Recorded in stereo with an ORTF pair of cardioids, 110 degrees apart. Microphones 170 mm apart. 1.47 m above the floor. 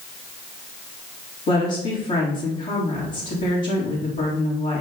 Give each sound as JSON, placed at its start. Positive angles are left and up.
{"t": 1.5, "sound": "a woman speaking", "azimuth_deg": 45, "distance_m": 2.5}